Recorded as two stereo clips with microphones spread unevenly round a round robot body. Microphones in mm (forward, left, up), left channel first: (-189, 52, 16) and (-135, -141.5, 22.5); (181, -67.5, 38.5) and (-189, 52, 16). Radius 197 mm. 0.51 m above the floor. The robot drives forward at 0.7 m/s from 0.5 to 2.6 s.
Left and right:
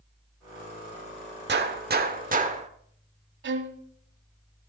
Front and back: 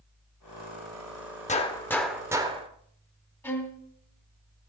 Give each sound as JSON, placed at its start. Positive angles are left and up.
{"t": 1.5, "sound": "a gunshot", "azimuth_deg": -90, "distance_m": 1.3}
{"t": 3.4, "sound": "a violin", "azimuth_deg": -100, "distance_m": 1.3}